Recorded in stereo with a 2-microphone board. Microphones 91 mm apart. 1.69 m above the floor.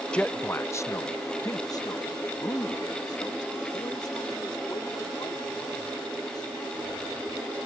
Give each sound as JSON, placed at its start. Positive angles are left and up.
{"t": 0.1, "sound": "a man speaking", "side_deg": 10}